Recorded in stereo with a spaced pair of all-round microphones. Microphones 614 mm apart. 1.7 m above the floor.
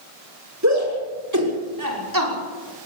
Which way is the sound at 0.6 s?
25° right (ahead or behind).